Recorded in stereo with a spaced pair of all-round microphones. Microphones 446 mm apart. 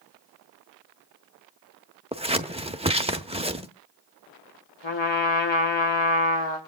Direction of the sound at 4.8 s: 70° left (ahead or behind).